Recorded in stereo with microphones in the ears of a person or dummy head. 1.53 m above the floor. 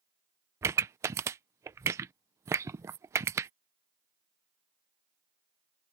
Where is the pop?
15° right (ahead or behind).